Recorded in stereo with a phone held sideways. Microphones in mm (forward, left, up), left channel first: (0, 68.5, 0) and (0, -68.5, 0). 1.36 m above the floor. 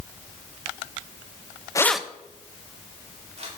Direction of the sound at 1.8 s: 25° left (ahead or behind).